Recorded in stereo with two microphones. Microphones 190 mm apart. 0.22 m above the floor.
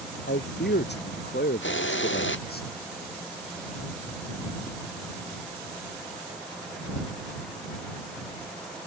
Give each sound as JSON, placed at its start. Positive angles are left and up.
{"t": 0.3, "sound": "a man speaking", "side_deg": 65}
{"t": 1.6, "sound": "a hiss", "side_deg": 90}